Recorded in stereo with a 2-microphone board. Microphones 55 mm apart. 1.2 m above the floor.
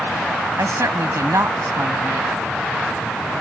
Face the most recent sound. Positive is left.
turn(degrees=-65)  # may be behind; listen again after turning